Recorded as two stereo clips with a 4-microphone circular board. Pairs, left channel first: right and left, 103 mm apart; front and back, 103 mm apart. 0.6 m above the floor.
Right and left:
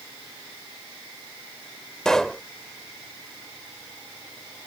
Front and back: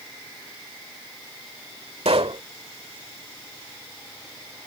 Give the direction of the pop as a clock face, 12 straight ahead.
6 o'clock.